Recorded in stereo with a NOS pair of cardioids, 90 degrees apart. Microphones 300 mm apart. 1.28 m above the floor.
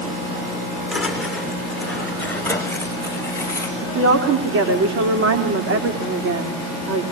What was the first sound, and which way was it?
Footsteps, straight ahead.